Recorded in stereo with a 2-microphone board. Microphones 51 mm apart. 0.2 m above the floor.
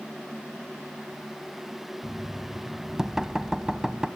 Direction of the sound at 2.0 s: 10° right (ahead or behind).